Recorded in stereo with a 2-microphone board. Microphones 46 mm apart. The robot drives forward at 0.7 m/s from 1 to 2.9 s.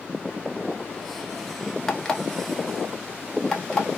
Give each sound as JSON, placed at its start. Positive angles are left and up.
{"t": 1.9, "sound": "an alarm clock", "side_deg": 15, "distance_m": 0.6}